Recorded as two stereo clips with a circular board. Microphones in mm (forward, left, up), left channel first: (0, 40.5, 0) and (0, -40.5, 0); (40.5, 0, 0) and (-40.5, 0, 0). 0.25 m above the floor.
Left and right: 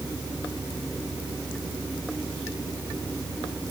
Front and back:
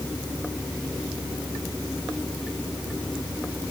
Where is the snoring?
I don't hear snoring.